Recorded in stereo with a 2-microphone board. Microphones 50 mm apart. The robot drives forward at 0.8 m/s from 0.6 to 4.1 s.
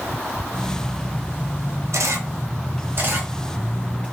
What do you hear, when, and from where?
1.9 s a camera shutter: 80° right, 1.0 m; by 4.0 s 30° right (ahead or behind), 2 m